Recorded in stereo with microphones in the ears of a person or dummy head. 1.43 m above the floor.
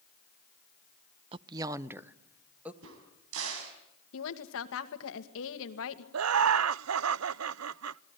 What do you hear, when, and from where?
1.3 s a woman speaking: 35° right (ahead or behind), 0.5 m; by 2.7 s 10° right (ahead or behind), 1.8 m
2.8 s a crack: 80° right, 4.5 m
4.1 s a woman speaking: 75° left (ahead or behind), 2 m
6.1 s laughter: 75° right (ahead or behind), 0.5 m